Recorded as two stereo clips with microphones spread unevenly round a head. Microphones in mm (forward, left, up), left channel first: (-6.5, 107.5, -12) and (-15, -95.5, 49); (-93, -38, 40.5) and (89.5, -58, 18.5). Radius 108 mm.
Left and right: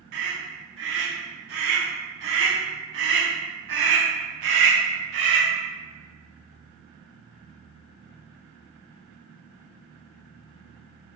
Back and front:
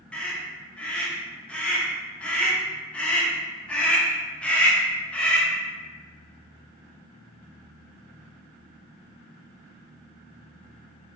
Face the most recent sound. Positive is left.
turn(degrees=-95)